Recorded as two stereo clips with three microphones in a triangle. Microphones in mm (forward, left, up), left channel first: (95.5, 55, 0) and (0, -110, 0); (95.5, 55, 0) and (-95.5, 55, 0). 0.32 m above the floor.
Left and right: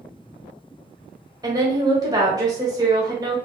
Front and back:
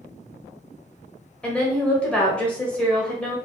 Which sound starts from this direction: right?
A woman speaking, at 1.4 s.